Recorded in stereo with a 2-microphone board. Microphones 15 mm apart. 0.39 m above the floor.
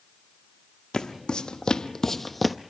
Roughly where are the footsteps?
Left.